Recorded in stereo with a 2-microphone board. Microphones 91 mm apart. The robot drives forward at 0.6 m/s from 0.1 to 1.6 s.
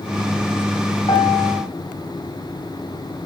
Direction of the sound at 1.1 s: 65° left (ahead or behind).